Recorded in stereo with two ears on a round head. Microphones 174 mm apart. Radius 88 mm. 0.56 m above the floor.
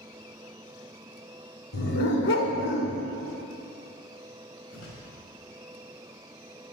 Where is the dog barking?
60° left (ahead or behind), 2 m.